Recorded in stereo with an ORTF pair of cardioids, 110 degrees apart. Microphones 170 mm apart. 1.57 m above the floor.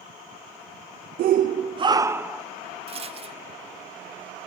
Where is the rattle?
35° right, 0.8 m.